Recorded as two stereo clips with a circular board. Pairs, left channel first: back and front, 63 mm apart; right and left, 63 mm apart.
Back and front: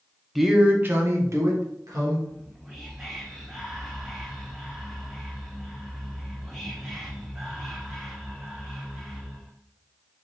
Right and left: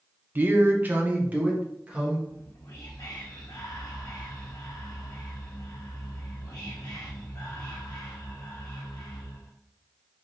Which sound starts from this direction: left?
A man speaking, at 0.3 s.